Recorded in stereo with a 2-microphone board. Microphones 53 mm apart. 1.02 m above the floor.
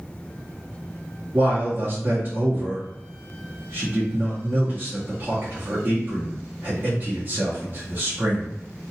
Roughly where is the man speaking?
Right.